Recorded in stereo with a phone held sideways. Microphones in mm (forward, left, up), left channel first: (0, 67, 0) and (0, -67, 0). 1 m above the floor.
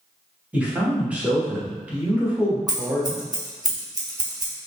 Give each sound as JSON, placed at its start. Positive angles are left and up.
{"t": 0.5, "sound": "a man speaking", "side_deg": -10, "distance_m": 1.1}
{"t": 2.7, "sound": "scissors", "side_deg": -25, "distance_m": 0.8}